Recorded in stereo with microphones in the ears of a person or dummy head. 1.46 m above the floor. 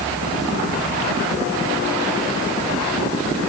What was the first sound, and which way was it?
Only background noise.